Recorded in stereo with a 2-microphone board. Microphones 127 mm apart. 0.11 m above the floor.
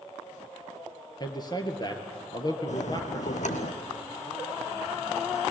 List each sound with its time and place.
1.2 s a man speaking: 35° left (ahead or behind), 2.5 m
2.7 s a bell: 70° left (ahead or behind), 1.5 m